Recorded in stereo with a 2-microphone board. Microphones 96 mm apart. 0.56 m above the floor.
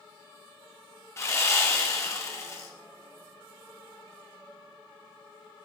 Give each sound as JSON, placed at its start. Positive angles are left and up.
{"t": 1.2, "sound": "sawing", "side_deg": 30, "distance_m": 1.4}